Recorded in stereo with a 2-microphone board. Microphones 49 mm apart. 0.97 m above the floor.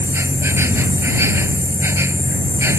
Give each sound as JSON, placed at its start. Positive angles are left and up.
{"t": 0.0, "sound": "an insect", "side_deg": -75}